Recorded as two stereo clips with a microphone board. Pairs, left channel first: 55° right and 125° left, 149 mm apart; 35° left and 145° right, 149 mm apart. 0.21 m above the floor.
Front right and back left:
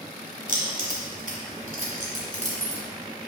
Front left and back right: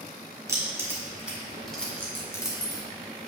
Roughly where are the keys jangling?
Behind left.